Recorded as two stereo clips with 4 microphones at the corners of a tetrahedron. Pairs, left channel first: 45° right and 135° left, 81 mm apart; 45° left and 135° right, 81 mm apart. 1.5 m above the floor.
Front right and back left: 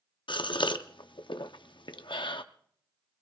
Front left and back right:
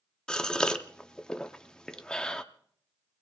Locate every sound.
0.3 s a gasp: 35° right, 0.7 m